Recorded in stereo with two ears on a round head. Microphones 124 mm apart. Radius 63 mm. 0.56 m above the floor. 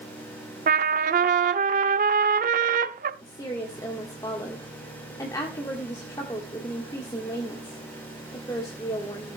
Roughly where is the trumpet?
Right.